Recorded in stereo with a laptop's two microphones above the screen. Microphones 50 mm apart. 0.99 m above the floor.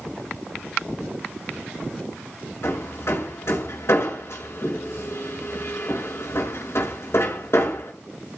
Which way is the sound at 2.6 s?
60° left (ahead or behind).